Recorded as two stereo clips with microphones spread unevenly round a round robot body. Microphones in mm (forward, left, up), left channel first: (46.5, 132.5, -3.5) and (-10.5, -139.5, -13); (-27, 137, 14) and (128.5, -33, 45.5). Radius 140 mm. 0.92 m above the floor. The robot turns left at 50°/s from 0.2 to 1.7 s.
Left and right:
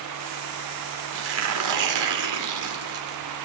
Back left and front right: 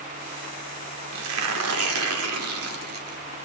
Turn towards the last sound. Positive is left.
turn(degrees=-85)